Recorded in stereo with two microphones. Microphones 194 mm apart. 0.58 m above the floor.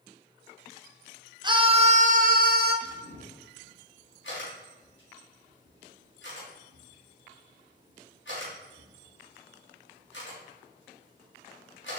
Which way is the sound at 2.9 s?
75° left (ahead or behind).